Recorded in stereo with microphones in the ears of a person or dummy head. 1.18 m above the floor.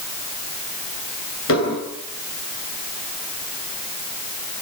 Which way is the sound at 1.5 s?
80° left.